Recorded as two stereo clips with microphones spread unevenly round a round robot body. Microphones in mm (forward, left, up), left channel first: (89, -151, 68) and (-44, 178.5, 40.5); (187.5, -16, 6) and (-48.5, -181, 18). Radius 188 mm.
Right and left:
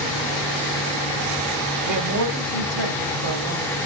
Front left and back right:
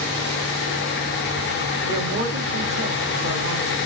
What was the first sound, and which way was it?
A man speaking, 170° left.